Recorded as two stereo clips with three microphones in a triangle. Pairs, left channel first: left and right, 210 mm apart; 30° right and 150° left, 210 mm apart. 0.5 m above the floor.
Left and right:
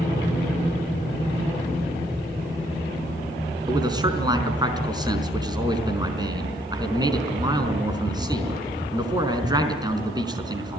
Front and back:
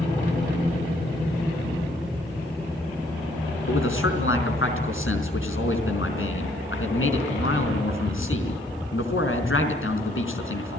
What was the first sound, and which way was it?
A man speaking, 20° right.